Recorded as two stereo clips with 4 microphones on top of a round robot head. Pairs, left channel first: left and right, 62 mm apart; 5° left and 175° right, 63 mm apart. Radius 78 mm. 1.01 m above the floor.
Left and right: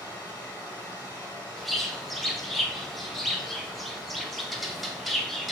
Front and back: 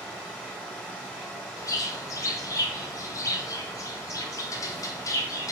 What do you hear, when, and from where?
0.0 s running water: 75° left, 1.9 m
1.6 s a bird: straight ahead, 0.6 m